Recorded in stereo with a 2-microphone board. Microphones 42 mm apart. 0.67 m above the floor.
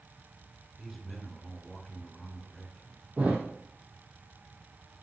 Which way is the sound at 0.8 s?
5° left (ahead or behind).